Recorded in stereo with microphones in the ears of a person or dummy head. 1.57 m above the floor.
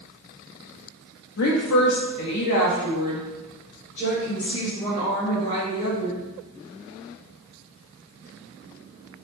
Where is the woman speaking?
60° left (ahead or behind), 0.5 m; by 6.2 s 30° left (ahead or behind), 3 m.